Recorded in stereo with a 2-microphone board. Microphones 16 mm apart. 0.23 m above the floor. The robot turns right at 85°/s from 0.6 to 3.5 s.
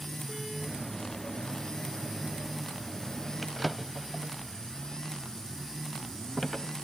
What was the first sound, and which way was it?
A drawer, 10° left (ahead or behind).